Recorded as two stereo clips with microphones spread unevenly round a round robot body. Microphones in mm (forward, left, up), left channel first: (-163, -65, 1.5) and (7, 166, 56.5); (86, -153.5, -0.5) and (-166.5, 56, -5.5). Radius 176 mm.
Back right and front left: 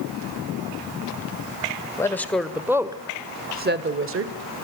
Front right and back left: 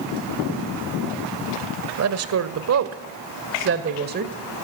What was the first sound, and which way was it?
A woman speaking, 165° left.